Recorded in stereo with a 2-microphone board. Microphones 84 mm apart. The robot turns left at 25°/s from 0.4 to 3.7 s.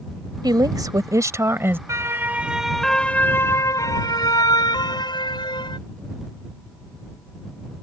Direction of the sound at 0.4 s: 120° right.